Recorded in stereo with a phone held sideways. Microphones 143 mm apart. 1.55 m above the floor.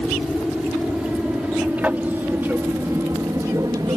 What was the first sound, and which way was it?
An aircraft, centre (ahead or behind).